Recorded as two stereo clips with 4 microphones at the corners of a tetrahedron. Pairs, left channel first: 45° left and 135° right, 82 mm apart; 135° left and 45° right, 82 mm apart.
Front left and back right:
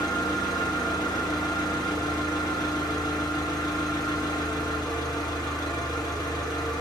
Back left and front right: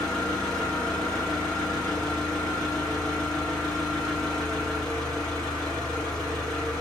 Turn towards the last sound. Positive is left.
turn(degrees=55)